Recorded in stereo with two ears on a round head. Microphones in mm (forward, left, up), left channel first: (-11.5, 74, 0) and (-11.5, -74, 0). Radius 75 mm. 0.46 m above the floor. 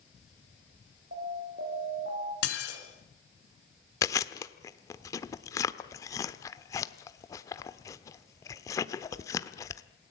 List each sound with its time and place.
1.1 s an alarm: 60° right (ahead or behind), 9 m
2.4 s dishes clattering: 75° left (ahead or behind), 4 m
4.0 s chewing: 20° left (ahead or behind), 1.0 m